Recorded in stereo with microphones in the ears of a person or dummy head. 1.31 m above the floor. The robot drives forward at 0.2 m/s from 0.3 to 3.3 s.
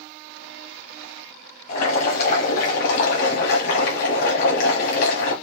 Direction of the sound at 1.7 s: 55° left (ahead or behind).